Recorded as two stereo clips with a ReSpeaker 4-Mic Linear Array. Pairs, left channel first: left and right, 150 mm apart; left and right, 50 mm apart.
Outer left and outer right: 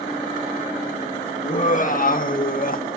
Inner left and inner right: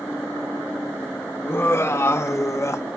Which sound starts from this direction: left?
Laughter, at 1.4 s.